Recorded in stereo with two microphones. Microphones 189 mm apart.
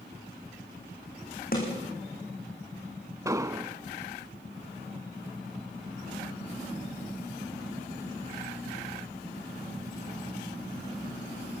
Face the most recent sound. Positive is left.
turn(degrees=-15)  # may be behind; listen again after turning